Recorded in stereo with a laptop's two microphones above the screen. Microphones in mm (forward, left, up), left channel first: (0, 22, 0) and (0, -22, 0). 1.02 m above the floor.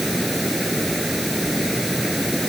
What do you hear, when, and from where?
0.0 s running water: centre (ahead or behind)